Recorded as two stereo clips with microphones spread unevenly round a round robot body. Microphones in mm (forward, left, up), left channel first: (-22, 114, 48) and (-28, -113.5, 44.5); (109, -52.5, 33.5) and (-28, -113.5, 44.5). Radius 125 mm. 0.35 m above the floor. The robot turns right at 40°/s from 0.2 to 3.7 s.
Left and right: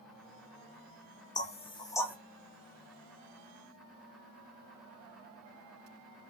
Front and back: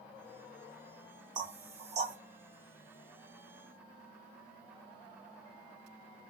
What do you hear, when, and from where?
1.4 s knocking: 140° left, 0.8 m; by 2.2 s 170° left, 0.8 m